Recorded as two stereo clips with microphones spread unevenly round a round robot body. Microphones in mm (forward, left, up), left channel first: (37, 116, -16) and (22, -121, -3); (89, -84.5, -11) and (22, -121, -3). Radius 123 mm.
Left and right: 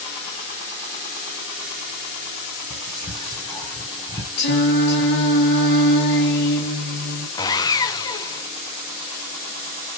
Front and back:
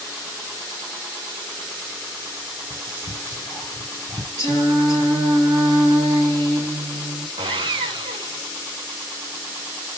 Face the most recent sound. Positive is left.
turn(degrees=160)